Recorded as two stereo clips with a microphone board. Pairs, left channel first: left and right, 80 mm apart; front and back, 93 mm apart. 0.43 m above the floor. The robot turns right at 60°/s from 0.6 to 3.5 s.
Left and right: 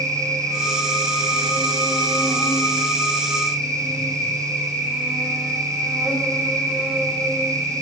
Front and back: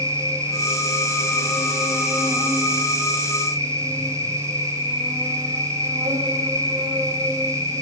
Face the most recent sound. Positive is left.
turn(degrees=-170)